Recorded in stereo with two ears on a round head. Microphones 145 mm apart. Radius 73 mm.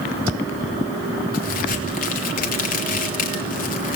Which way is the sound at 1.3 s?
60° left (ahead or behind).